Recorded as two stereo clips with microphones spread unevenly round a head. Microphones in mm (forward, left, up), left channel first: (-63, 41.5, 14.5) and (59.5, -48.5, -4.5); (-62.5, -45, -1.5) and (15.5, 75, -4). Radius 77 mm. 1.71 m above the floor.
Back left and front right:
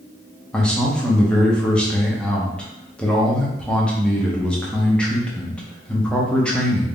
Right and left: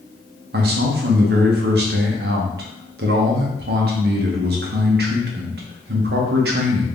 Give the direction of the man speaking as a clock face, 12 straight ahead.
10 o'clock.